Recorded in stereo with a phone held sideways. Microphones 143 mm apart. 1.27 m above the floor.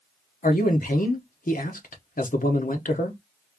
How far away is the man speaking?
About 1.0 m.